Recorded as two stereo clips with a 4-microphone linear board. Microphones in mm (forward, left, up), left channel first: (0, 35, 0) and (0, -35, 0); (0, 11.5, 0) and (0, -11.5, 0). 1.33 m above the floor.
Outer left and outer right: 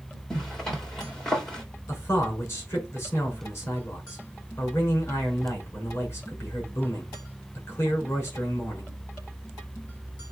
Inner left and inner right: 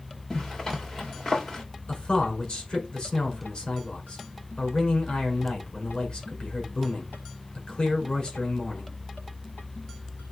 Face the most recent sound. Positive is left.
turn(degrees=40)  # may be behind; listen again after turning